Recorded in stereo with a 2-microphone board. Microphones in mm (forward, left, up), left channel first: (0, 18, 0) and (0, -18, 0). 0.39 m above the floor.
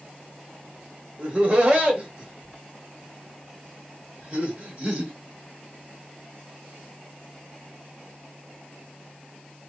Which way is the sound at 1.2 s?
35° right (ahead or behind).